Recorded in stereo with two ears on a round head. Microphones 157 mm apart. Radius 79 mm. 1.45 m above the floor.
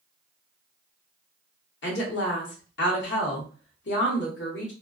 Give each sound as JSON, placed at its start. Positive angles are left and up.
{"t": 1.8, "sound": "a woman speaking", "side_deg": 70, "distance_m": 1.0}